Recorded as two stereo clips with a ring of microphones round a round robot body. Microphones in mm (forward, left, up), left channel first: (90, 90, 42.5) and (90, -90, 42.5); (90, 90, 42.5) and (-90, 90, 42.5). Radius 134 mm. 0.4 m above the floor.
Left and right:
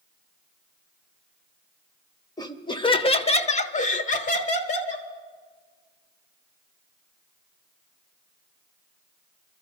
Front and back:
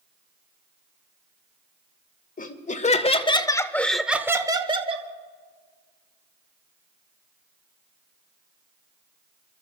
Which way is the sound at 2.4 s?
25° left.